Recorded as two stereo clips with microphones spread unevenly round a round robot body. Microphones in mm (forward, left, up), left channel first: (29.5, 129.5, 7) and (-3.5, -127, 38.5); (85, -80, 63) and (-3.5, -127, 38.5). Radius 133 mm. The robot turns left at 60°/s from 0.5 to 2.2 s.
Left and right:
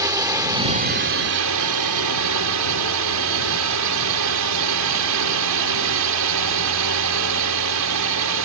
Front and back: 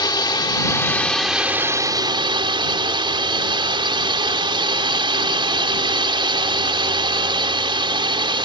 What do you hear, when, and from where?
0.0 s a drone: 20° right; by 8.4 s 120° right